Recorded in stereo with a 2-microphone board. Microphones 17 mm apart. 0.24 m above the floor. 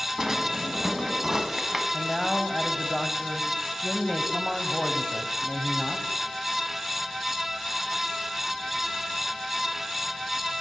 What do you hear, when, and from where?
0.2 s a drawer: 25° right (ahead or behind), 1.2 m
1.9 s a man speaking: 10° left (ahead or behind), 1.0 m